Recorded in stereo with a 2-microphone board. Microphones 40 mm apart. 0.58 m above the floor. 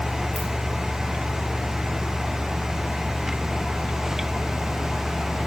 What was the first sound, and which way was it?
A ringtone, 5° left (ahead or behind).